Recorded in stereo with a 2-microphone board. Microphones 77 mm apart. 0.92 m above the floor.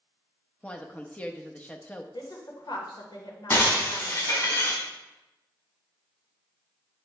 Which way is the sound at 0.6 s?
15° left (ahead or behind).